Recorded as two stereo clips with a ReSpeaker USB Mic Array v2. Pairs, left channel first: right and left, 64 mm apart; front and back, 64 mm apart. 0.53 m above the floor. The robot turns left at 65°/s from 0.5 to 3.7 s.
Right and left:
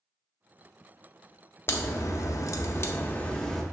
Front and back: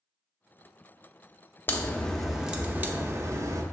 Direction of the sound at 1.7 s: 50° right.